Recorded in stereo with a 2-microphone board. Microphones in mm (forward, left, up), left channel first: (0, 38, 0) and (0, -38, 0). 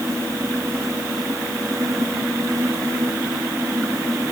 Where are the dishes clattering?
No dishes clattering in this recording.